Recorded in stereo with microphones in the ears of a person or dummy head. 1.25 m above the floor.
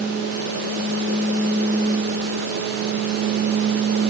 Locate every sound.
Only background noise.